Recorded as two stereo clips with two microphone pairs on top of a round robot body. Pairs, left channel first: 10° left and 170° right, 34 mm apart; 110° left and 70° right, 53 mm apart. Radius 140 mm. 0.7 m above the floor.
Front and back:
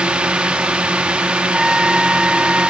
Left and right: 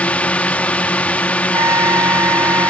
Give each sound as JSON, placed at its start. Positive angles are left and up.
{"t": 0.0, "sound": "a drone", "azimuth_deg": 170}
{"t": 1.5, "sound": "a trumpet", "azimuth_deg": -90}